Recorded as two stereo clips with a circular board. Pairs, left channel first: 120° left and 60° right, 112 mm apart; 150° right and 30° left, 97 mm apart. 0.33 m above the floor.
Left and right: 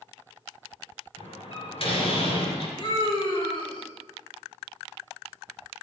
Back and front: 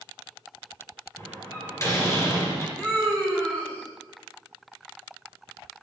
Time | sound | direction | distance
1.2 | a door slam | 155° left | 3.5 m
2.8 | a scream | 145° left | 3 m